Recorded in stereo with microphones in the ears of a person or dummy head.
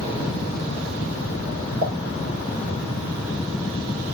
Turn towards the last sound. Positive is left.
turn(degrees=-85)